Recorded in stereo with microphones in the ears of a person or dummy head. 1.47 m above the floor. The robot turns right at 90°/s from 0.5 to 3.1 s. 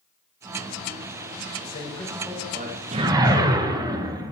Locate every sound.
1.6 s a man speaking: 125° left, 1.7 m; by 3.4 s 100° right, 1.7 m
2.9 s a whoosh: 35° right (ahead or behind), 1.0 m; by 4.3 s 20° right (ahead or behind), 1.0 m